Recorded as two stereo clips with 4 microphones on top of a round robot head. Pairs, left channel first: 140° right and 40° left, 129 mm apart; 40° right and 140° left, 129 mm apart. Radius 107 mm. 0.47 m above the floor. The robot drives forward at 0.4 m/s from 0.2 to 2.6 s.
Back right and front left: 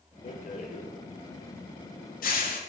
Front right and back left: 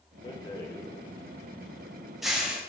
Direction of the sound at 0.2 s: 100° right.